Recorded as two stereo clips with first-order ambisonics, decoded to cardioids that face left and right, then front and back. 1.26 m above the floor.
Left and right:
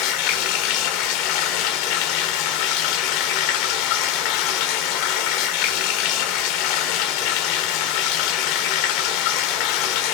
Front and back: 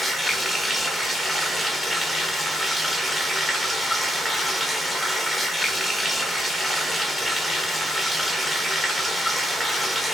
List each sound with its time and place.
0.0 s running water: 90° left, 1.1 m